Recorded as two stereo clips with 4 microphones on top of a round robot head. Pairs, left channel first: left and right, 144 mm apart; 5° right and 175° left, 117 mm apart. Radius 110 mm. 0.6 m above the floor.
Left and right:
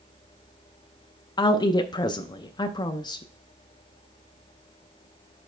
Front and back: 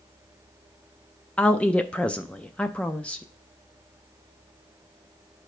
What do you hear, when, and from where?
1.4 s a woman speaking: 70° left, 0.6 m